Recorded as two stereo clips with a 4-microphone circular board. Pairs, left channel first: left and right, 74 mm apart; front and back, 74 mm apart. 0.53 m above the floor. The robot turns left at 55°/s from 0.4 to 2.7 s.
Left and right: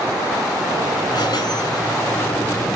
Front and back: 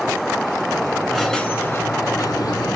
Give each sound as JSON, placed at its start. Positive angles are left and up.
{"t": 1.1, "sound": "a squeak", "azimuth_deg": 95, "distance_m": 1.0}